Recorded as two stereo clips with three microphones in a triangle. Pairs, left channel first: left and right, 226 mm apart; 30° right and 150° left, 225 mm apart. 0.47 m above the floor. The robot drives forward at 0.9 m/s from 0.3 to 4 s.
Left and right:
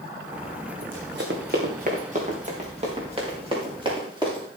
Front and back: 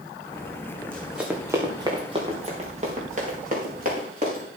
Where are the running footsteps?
110° right, 2 m; by 4.5 s 160° right, 7 m.